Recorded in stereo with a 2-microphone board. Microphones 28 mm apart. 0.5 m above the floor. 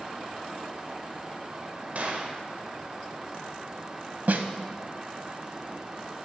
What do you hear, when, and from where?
1.9 s a gunshot: 55° right (ahead or behind), 1.1 m
4.3 s a snare drum: 75° right (ahead or behind), 0.6 m